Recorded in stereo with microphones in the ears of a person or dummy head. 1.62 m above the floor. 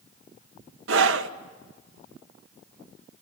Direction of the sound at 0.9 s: 75° right (ahead or behind).